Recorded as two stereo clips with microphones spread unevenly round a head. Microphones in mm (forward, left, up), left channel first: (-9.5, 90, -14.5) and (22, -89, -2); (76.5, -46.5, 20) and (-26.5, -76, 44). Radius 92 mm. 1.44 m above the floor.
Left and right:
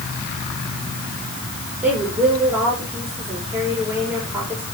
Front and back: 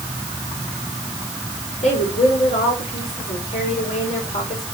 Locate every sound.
1.8 s a woman speaking: 5° left, 5.5 m